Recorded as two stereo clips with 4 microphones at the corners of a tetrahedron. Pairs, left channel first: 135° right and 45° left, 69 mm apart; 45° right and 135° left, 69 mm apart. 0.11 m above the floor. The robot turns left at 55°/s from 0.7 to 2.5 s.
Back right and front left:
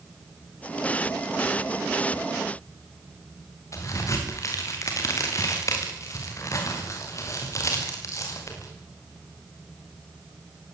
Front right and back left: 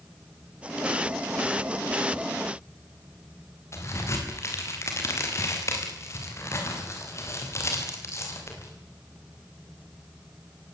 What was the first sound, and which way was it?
A crack, 90° right.